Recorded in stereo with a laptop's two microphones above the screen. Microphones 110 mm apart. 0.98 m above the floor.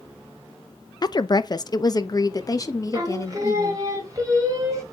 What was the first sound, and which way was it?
A woman speaking, 35° left (ahead or behind).